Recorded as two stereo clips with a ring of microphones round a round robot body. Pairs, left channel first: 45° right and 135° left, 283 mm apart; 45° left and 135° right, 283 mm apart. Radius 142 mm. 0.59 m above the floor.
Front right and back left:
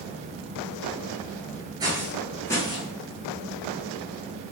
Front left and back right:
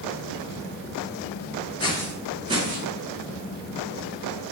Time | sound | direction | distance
1.8 | footsteps | 85° left | 0.5 m